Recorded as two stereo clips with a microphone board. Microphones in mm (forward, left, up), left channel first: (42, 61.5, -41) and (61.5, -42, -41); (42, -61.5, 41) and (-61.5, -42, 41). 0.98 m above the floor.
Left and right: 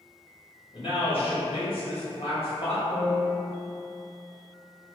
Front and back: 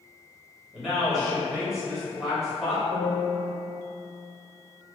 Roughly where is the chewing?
I don't hear chewing.